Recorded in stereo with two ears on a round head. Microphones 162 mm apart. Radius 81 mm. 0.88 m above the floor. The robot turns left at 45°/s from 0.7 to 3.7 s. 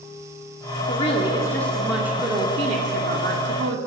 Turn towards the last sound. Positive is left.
turn(degrees=-85)